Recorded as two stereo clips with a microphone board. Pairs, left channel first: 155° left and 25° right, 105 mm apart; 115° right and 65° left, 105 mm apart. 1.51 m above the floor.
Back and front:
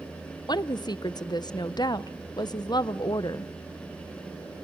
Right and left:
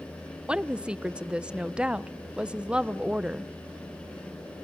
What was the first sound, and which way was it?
A woman speaking, 145° left.